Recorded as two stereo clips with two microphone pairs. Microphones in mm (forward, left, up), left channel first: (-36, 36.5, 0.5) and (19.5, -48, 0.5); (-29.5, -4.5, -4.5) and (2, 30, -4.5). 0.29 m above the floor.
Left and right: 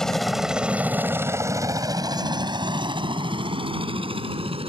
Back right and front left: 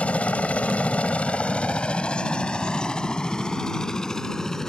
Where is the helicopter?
155° right; by 4.7 s 50° right.